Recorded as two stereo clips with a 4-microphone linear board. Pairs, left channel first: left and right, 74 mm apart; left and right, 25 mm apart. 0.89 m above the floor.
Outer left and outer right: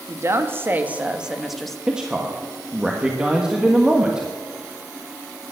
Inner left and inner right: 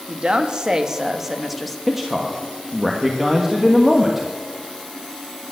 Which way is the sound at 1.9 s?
10° right (ahead or behind).